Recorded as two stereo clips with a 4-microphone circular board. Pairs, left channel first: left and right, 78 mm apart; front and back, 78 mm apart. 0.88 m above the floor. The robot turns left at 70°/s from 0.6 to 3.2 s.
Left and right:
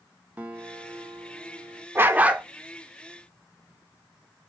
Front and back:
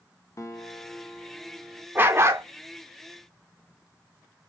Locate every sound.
0.4 s a guitar: 30° right, 0.8 m; by 1.9 s 120° right, 0.8 m
1.9 s a dog barking: 130° right, 0.5 m; by 2.5 s 165° right, 0.5 m